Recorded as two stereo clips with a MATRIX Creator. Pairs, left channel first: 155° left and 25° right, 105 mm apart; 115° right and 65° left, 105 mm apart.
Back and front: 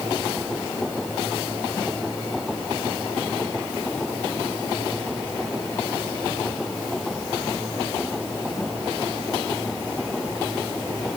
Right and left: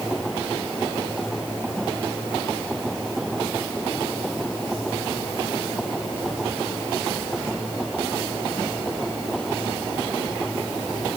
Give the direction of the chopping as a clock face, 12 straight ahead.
I don't hear chopping.